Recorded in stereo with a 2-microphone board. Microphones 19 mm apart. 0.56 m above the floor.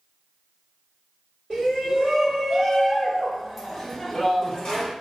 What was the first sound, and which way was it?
A shout, 45° right (ahead or behind).